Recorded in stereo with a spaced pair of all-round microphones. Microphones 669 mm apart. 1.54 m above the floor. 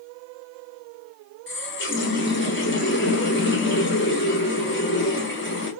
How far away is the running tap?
About 0.7 m.